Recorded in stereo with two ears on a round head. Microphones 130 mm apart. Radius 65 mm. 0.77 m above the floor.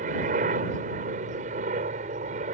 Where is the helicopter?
55° right (ahead or behind); by 2.5 s 50° right (ahead or behind).